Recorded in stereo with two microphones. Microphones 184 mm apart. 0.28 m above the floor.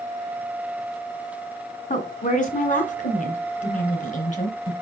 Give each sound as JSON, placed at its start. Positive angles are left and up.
{"t": 1.9, "sound": "a woman speaking", "side_deg": 45, "distance_m": 1.9}